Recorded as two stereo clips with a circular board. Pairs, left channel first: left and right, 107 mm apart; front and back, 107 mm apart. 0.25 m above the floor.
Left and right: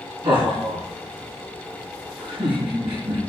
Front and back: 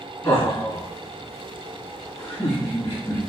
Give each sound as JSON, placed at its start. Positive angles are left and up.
{"t": 0.2, "sound": "laughter", "azimuth_deg": -55, "distance_m": 3.5}